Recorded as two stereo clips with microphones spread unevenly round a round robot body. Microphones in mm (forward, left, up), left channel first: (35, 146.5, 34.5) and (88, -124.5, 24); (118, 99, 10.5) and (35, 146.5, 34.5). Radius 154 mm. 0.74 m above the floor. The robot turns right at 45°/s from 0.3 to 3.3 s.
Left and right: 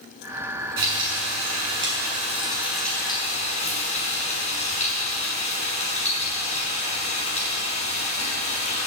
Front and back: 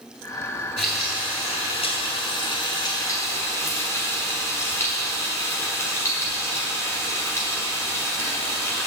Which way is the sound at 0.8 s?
80° right.